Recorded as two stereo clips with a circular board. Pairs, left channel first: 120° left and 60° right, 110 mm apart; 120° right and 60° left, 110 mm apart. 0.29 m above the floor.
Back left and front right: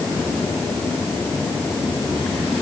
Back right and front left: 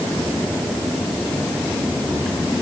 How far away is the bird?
I don't hear a bird.